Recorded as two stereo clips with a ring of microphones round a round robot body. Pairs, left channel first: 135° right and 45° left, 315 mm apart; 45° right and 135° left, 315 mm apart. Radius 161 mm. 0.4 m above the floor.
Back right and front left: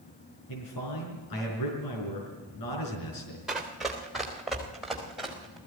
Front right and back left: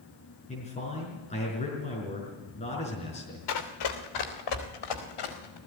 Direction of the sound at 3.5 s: 45° right.